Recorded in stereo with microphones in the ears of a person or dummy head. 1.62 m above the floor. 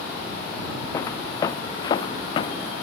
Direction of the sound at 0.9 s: 15° left (ahead or behind).